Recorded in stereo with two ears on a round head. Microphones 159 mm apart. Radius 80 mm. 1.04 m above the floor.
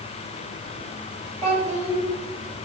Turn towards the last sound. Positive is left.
turn(degrees=15)  # may be behind; listen again after turning